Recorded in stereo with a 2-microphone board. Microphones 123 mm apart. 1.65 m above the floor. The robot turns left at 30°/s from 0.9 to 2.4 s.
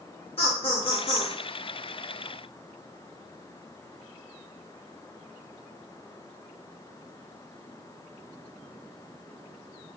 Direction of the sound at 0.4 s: 50° left (ahead or behind).